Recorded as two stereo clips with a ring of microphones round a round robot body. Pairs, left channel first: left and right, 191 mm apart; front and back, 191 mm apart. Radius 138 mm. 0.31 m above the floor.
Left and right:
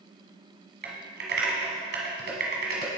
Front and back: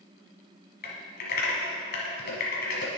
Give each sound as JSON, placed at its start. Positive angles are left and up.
{"t": 0.8, "sound": "typing on a keyboard", "azimuth_deg": -45, "distance_m": 1.2}